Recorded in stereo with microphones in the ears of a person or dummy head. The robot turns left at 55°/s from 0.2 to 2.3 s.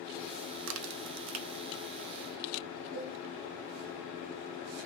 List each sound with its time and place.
0.7 s a crack: 65° right (ahead or behind), 0.5 m; by 1.6 s 55° right (ahead or behind), 0.5 m
2.9 s a cowbell: 50° right (ahead or behind), 3 m